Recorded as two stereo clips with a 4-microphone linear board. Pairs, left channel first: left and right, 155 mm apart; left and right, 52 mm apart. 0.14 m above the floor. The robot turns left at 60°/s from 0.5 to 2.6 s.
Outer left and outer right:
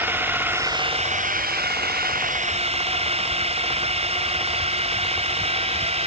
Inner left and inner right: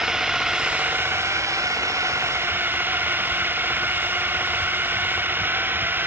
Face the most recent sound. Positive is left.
turn(degrees=-140)